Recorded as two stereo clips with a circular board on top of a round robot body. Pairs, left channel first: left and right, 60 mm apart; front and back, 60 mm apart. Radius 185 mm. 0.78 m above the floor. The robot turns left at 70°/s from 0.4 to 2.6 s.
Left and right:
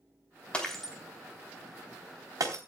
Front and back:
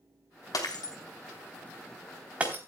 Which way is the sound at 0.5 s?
20° left.